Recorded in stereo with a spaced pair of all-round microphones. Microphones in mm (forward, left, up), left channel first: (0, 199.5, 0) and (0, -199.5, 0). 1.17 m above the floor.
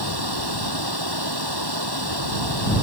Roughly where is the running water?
Right.